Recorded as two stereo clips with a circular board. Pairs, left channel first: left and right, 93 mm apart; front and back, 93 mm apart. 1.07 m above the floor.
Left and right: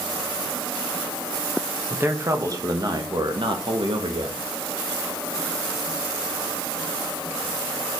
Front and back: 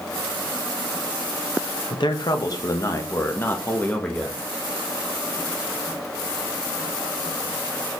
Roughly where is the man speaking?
Ahead right.